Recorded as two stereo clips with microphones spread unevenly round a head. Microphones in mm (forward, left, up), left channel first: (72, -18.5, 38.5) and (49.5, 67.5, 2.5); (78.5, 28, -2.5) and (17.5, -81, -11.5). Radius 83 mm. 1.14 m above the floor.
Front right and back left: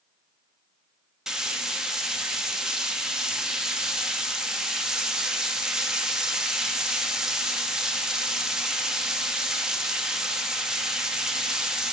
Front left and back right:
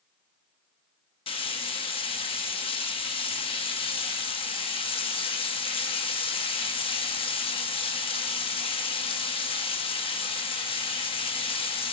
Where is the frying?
20° left, 1.3 m.